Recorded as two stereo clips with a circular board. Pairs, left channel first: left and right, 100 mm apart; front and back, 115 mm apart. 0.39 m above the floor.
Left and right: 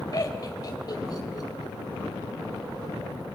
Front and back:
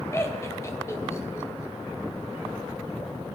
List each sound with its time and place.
0.1 s laughter: 55° left, 2 m